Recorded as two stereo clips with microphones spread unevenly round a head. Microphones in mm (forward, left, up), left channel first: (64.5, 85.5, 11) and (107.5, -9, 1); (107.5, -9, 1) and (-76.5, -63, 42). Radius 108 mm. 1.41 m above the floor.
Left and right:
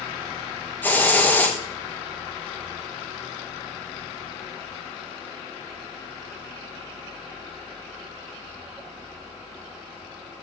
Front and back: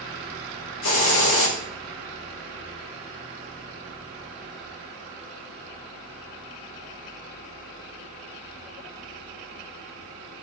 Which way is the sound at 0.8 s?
45° left.